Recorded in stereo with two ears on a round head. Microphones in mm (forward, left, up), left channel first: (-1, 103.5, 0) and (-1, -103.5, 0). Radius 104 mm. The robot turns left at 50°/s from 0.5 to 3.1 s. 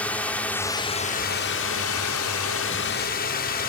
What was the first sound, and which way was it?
A drone, 175° left.